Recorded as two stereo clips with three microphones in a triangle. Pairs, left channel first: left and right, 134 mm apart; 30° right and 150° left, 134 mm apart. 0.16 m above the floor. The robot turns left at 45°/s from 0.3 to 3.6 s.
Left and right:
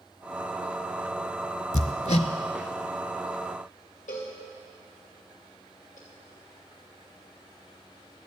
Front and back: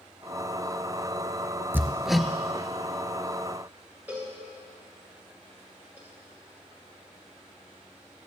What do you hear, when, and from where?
1.7 s hammering: 80° left, 0.6 m; by 2.3 s 55° left, 0.6 m
4.1 s a cowbell: 75° left, 3 m